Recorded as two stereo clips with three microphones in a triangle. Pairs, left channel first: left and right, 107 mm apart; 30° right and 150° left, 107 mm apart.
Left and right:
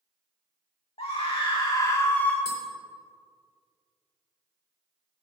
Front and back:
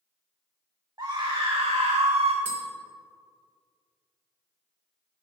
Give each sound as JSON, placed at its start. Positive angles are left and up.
{"t": 1.0, "sound": "a scream", "azimuth_deg": 100, "distance_m": 1.3}
{"t": 2.5, "sound": "tapping", "azimuth_deg": -135, "distance_m": 3.5}